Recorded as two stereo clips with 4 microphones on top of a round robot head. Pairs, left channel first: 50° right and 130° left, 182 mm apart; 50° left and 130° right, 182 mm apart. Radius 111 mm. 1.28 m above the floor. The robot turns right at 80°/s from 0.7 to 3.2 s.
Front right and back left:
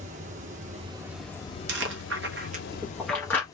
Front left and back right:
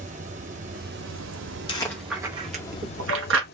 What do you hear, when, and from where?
0.0 s running water: straight behind, 0.7 m; by 3.5 s 20° left, 0.7 m
1.7 s chewing: 110° left, 0.7 m; by 3.4 s 130° right, 0.7 m